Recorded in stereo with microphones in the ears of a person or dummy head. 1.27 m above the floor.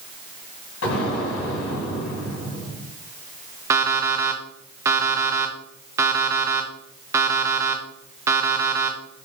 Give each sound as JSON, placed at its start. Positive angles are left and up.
{"t": 0.8, "sound": "an explosion", "side_deg": 70, "distance_m": 2.5}
{"t": 3.7, "sound": "an alarm clock", "side_deg": -10, "distance_m": 0.6}